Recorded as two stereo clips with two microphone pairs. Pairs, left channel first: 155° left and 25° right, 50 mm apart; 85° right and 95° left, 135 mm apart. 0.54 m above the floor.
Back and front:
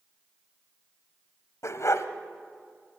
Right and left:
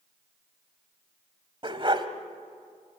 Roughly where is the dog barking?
Behind left.